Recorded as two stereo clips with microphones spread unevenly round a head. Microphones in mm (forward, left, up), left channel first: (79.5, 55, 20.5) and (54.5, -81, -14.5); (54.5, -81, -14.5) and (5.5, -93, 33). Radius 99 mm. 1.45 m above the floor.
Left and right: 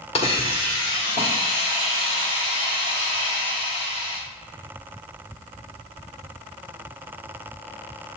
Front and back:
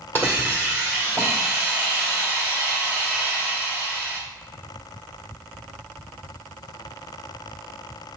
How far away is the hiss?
About 1.7 m.